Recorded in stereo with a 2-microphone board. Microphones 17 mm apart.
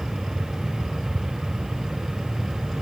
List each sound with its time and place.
Only background noise.